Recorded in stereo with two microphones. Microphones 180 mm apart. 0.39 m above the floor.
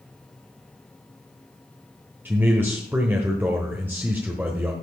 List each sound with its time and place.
2.2 s a man speaking: 10° right (ahead or behind), 1.1 m